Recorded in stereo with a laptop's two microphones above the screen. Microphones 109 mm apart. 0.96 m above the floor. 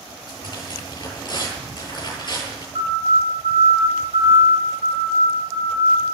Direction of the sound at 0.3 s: 45° left (ahead or behind).